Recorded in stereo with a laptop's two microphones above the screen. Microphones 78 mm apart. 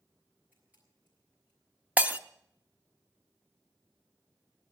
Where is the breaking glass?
20° right (ahead or behind), 0.6 m.